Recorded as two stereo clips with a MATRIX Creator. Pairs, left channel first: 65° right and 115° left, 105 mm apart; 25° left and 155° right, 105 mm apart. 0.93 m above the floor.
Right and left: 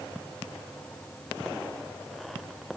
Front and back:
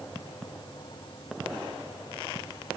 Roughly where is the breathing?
I don't hear breathing.